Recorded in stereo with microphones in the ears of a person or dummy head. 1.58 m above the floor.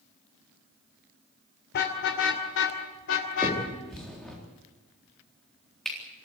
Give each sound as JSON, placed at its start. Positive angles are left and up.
{"t": 1.7, "sound": "a car horn", "side_deg": 55, "distance_m": 2.5}
{"t": 3.4, "sound": "a finger snap", "side_deg": 5, "distance_m": 4.0}